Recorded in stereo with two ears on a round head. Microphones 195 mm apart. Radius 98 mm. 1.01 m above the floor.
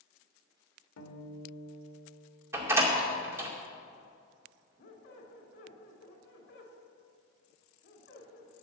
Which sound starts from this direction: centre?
A door slam, at 2.5 s.